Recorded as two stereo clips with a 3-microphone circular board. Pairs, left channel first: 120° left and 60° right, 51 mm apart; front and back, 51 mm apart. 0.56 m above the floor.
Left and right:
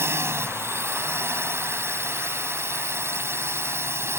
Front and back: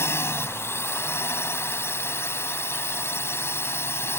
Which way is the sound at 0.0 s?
30° right.